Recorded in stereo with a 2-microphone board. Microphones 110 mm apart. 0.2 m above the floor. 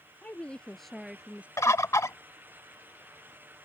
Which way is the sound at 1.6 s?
30° left (ahead or behind).